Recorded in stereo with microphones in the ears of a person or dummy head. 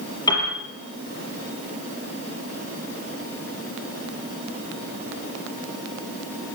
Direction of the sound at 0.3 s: 25° left (ahead or behind).